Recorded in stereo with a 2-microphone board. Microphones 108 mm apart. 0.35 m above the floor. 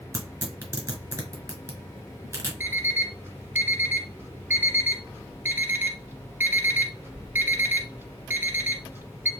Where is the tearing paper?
30° right (ahead or behind), 1.4 m.